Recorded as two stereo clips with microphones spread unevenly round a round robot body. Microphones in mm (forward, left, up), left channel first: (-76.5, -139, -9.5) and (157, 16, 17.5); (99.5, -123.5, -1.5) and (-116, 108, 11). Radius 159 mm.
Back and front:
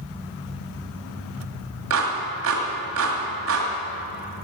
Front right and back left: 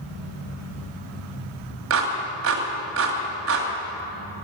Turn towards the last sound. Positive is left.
turn(degrees=85)